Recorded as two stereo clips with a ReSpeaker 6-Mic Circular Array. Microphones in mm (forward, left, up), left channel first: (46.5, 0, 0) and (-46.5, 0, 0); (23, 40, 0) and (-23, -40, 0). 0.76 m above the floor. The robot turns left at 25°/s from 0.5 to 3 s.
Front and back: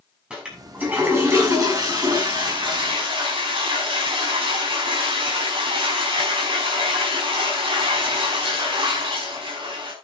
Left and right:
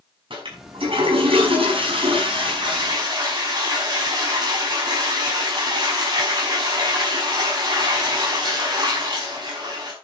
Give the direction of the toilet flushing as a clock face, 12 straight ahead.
3 o'clock.